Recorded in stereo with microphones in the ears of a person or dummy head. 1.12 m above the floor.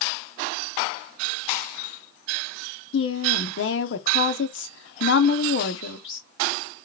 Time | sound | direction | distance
2.9 | a woman speaking | 60° left (ahead or behind) | 0.7 m